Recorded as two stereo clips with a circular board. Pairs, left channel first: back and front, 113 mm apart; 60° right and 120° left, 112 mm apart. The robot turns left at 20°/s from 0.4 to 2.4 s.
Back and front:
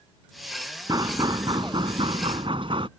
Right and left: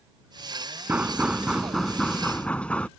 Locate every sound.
0.9 s knocking: 45° left; by 2.9 s 15° left